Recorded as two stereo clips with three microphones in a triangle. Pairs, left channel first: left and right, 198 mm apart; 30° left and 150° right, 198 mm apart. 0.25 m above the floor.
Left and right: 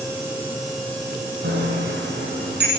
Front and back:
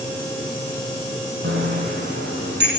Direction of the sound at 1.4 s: 120° right.